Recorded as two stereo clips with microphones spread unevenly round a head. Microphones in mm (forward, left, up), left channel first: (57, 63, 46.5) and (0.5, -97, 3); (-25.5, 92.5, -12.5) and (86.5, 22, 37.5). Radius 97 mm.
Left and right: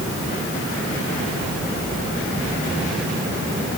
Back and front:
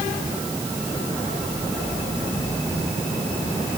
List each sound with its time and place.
Only background noise.